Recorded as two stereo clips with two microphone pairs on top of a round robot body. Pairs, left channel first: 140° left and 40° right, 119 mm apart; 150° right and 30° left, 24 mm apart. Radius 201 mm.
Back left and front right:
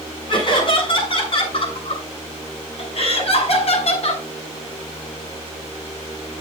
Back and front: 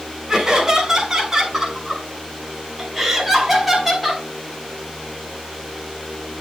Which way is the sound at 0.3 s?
90° left.